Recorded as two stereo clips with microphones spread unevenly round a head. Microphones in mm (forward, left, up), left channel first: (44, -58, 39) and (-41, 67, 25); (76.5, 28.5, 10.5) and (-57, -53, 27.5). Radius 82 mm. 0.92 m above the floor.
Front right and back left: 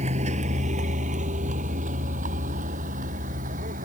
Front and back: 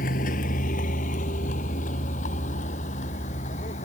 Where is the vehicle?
75° left; by 3.9 s 85° left.